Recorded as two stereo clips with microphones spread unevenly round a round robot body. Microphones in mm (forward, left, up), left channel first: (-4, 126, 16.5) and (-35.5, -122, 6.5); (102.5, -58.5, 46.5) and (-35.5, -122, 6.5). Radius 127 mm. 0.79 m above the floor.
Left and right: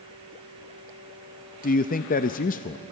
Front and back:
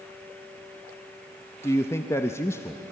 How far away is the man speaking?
About 0.6 m.